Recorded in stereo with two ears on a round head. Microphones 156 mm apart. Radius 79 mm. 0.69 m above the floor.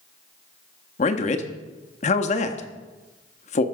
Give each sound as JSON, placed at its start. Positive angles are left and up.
{"t": 1.0, "sound": "a man speaking", "side_deg": 45, "distance_m": 0.9}